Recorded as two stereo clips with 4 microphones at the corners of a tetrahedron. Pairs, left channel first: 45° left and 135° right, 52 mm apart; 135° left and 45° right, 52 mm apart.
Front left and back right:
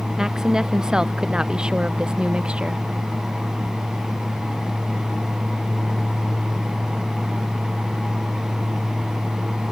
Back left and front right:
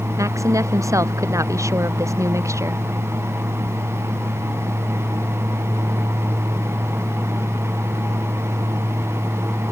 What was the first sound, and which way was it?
A woman speaking, 55° right.